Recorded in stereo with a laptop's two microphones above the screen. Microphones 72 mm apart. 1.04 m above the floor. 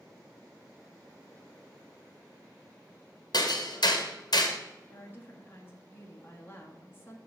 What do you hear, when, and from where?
3.3 s hammering: 65° left (ahead or behind), 1.1 m
4.9 s a woman speaking: 25° left (ahead or behind), 1.3 m